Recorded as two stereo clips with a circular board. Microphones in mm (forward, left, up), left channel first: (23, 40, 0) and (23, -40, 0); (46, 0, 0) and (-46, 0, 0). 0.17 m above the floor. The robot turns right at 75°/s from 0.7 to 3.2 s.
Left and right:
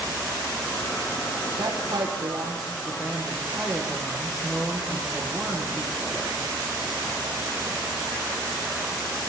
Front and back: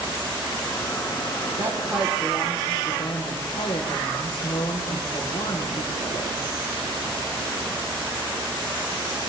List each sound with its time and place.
1.6 s a woman speaking: 125° right, 7 m; by 6.3 s 5° right, 7 m